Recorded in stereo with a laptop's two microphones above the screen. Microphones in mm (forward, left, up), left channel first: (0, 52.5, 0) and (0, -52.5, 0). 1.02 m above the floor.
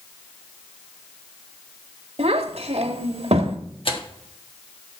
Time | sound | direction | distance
2.2 | a child speaking | 80° right | 1.5 m
3.9 | tearing paper | 60° left (ahead or behind) | 1.3 m